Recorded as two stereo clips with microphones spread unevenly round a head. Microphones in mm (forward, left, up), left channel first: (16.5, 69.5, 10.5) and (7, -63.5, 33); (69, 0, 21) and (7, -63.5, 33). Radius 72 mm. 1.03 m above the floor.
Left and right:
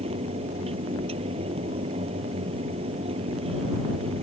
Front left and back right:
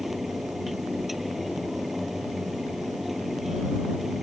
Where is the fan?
45° right.